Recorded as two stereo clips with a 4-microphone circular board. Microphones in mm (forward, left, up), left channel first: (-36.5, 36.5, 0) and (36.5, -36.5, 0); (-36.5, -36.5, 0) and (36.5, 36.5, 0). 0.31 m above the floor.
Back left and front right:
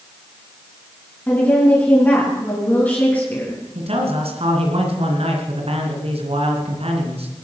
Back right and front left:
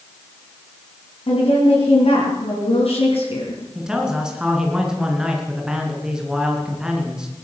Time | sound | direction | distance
1.3 | a woman speaking | 155° right | 3.5 m
3.8 | a man speaking | 40° right | 3 m